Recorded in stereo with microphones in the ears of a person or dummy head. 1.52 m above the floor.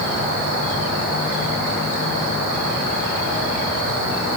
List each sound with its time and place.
Only background noise.